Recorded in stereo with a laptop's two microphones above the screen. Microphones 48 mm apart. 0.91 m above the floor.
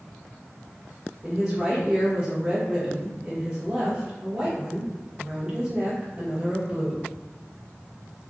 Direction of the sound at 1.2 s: 15° right (ahead or behind).